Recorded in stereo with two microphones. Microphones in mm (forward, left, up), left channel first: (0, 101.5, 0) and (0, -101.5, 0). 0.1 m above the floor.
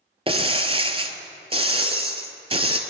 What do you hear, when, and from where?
0.3 s breaking glass: 25° right (ahead or behind), 0.8 m